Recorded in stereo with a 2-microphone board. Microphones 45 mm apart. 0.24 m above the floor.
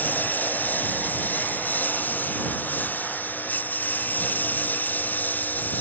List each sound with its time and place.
0.0 s a lawn mower: 45° left (ahead or behind)